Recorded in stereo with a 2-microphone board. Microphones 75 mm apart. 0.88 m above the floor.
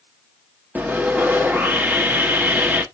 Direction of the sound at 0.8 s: 20° right (ahead or behind).